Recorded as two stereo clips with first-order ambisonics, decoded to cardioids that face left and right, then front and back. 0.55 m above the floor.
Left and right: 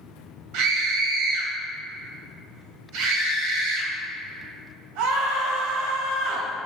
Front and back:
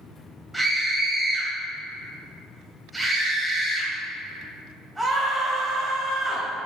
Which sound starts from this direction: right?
A scream, at 0.5 s.